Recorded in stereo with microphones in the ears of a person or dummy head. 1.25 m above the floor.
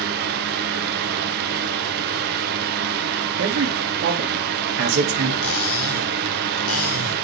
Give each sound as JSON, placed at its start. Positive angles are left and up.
{"t": 0.0, "sound": "a fan", "side_deg": -50, "distance_m": 0.8}
{"t": 3.4, "sound": "a man speaking", "side_deg": -80, "distance_m": 2.5}
{"t": 5.4, "sound": "cutlery clinking", "side_deg": 80, "distance_m": 3.5}